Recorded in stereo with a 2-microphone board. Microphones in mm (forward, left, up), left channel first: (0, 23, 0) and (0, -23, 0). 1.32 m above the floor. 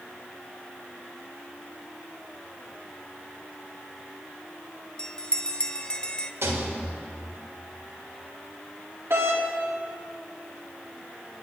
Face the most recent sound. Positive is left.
turn(degrees=-70)  # may be behind; listen again after turning